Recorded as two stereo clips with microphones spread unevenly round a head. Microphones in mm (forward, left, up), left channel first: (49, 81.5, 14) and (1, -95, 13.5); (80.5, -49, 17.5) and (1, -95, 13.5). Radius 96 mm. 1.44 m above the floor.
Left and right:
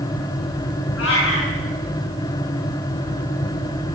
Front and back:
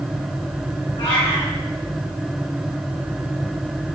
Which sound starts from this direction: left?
A cat meowing, at 1.0 s.